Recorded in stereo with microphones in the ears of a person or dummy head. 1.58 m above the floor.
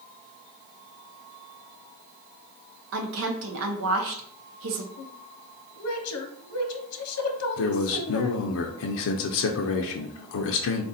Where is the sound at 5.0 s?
85° left, 0.9 m.